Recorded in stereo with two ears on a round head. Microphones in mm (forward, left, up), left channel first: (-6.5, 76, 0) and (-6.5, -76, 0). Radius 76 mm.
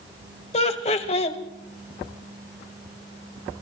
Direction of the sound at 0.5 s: 40° left (ahead or behind).